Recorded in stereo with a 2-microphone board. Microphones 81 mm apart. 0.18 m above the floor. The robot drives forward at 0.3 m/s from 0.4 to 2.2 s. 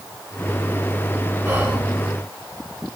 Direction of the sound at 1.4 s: 25° right (ahead or behind).